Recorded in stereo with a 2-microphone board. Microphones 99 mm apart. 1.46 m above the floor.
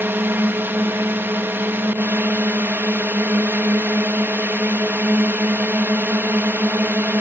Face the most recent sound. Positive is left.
turn(degrees=-20)  # may be behind; listen again after turning